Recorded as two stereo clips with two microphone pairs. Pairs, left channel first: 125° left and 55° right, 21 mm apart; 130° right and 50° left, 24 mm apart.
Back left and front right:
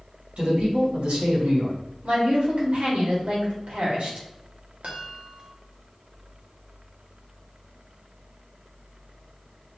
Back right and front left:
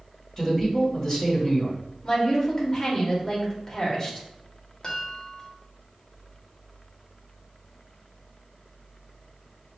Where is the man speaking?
60° right, 2.5 m.